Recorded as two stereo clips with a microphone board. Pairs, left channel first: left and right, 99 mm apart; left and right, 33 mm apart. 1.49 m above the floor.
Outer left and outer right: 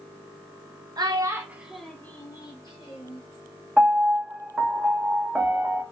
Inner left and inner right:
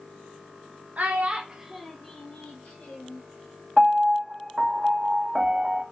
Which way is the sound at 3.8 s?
5° right (ahead or behind).